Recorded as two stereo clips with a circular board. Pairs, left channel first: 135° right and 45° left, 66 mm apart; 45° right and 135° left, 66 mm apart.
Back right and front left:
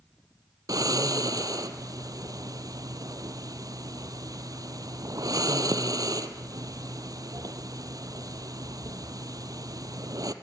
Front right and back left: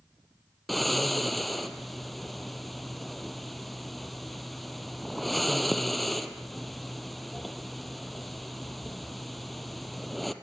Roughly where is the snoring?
Ahead left.